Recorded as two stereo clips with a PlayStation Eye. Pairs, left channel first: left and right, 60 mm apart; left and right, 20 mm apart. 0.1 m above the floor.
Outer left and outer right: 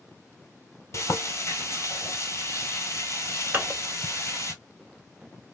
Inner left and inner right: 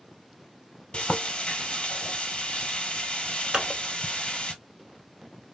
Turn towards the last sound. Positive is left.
turn(degrees=-30)  # may be behind; listen again after turning